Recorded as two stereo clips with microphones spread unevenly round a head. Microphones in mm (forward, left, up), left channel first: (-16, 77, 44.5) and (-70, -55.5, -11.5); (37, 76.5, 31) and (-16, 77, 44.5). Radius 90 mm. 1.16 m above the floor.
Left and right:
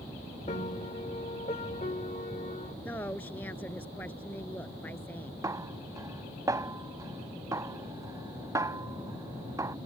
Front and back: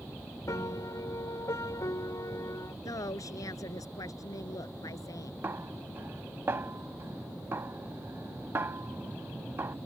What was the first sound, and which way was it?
A piano, 15° left.